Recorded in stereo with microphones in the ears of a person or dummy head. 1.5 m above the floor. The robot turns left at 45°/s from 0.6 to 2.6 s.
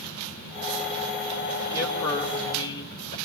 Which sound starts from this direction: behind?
A man speaking, at 1.7 s.